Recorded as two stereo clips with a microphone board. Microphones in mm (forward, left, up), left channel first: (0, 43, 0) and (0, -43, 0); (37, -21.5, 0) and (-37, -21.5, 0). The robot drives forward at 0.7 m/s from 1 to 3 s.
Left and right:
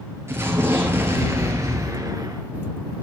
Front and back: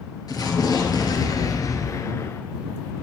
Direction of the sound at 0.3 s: 30° right.